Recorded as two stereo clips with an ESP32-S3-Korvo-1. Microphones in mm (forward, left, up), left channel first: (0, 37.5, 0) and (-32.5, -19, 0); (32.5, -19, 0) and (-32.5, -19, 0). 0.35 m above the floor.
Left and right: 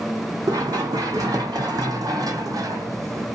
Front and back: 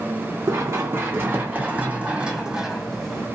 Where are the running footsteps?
135° right, 1.8 m; by 3.2 s 80° right, 1.1 m.